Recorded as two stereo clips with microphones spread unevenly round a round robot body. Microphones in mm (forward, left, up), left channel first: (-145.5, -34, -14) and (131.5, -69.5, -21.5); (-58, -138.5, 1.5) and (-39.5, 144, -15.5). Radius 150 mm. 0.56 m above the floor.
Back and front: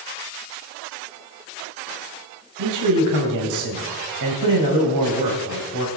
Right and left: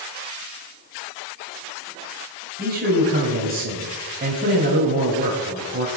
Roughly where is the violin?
No violin in this recording.